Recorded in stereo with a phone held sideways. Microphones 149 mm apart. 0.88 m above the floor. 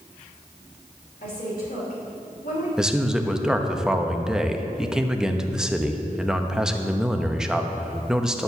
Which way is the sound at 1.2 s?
80° left.